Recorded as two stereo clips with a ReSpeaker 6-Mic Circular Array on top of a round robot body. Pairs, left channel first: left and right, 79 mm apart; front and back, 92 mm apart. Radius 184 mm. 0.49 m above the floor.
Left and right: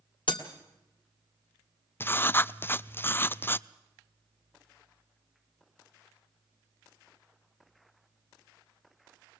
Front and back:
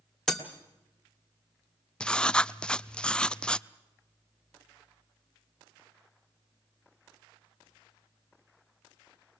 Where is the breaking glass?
85° left, 1.5 m.